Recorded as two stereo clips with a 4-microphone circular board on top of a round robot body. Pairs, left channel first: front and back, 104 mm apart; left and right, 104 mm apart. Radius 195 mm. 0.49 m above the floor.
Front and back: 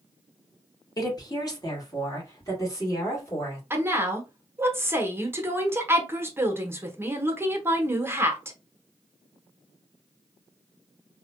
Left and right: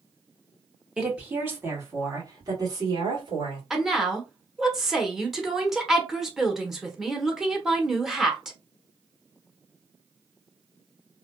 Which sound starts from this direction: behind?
A woman speaking, at 3.7 s.